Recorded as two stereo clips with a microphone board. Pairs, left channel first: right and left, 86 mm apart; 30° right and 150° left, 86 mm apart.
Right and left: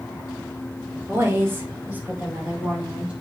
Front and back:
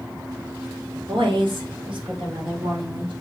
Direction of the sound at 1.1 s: 150° left.